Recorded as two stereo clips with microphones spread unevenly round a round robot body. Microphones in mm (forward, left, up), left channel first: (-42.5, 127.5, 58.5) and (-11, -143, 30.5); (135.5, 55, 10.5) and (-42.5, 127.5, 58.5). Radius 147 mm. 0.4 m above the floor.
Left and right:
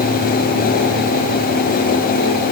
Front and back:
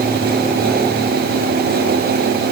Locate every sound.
Only background noise.